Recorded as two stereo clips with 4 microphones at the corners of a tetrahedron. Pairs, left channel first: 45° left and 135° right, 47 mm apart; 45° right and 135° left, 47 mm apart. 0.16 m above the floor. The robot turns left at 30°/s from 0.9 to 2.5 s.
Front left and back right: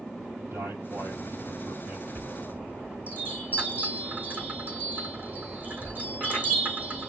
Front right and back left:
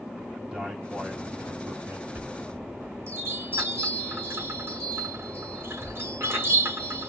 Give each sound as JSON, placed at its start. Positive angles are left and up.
{"t": 0.4, "sound": "a man speaking", "azimuth_deg": -155, "distance_m": 3.5}
{"t": 2.1, "sound": "a chime", "azimuth_deg": 180, "distance_m": 3.5}